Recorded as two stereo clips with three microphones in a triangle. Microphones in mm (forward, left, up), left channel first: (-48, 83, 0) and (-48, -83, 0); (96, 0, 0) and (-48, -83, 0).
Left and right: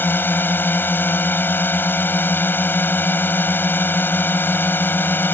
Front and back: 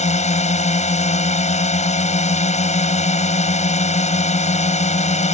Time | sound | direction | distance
0.0 | a drone | 15° left | ?